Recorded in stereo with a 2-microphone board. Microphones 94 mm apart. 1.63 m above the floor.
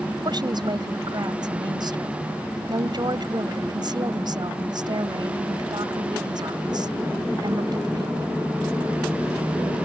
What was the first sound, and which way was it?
A woman speaking, 50° right (ahead or behind).